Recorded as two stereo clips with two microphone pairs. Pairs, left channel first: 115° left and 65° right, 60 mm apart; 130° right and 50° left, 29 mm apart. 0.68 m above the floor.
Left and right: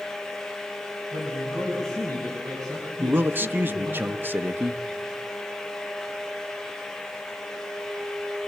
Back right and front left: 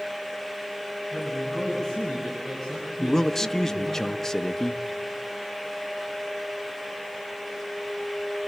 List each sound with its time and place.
1.1 s a man speaking: 65° right, 4.5 m; by 4.0 s 55° right, 7 m
3.0 s a man speaking: 70° right, 0.8 m